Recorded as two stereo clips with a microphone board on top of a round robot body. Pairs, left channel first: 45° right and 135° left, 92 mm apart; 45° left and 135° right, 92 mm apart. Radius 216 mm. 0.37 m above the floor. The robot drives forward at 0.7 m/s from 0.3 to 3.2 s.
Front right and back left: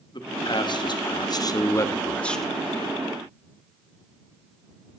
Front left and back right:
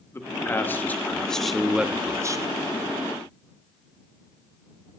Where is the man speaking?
15° right, 1.5 m; by 2.5 s 135° right, 0.9 m.